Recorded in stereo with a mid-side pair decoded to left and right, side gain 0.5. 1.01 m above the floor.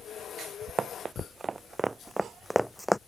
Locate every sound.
0.8 s running footsteps: 30° right; by 3.0 s 10° left